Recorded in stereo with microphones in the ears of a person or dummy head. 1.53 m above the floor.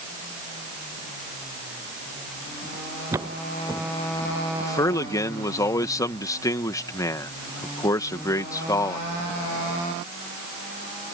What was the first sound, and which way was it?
Footsteps, 15° right (ahead or behind).